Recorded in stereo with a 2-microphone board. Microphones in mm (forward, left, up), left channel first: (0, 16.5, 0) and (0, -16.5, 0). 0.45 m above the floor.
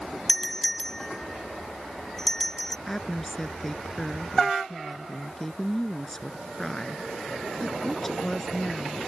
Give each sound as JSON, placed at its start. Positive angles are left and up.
{"t": 0.3, "sound": "a doorbell", "side_deg": 15}
{"t": 2.9, "sound": "a woman speaking", "side_deg": 10}